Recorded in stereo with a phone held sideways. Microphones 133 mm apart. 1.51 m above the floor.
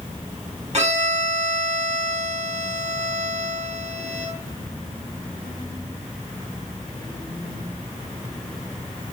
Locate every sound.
0.7 s a violin: 60° right (ahead or behind), 4 m